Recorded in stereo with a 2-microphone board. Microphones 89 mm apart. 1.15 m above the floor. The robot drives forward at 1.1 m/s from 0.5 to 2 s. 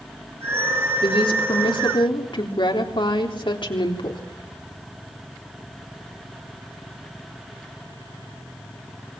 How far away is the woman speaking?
About 3 m.